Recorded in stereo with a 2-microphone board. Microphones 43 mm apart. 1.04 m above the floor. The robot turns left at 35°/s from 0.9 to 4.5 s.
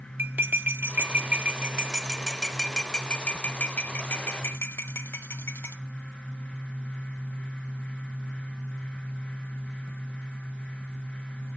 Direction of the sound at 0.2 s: 50° right (ahead or behind).